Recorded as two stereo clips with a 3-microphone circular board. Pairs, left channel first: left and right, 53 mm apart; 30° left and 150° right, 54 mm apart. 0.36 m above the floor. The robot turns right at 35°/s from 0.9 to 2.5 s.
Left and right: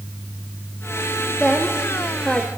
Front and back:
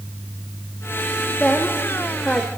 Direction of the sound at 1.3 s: 15° right.